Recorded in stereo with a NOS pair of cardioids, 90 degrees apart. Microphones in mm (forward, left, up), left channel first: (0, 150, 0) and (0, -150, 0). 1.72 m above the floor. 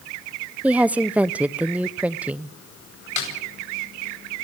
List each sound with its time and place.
0.6 s a woman speaking: 5° right, 0.9 m
3.2 s a snare drum: 70° left, 9.5 m